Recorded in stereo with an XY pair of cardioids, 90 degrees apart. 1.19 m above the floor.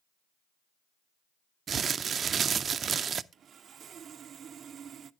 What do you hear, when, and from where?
1.7 s crumpling: 55° right, 0.5 m
3.3 s sawing: 65° right, 0.6 m